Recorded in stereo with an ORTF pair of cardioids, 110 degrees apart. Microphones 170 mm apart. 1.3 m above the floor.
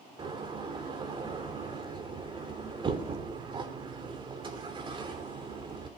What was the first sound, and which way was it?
A door slam, 30° right.